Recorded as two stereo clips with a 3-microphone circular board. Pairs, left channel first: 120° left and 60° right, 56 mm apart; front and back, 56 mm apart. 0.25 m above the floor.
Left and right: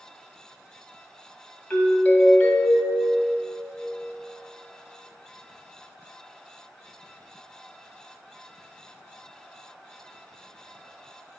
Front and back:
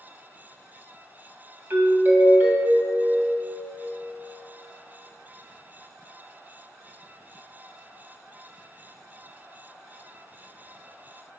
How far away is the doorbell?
About 1.8 m.